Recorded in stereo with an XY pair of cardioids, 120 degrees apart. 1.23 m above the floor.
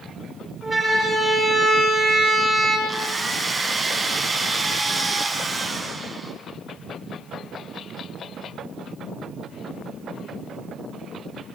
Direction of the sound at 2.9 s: 10° right.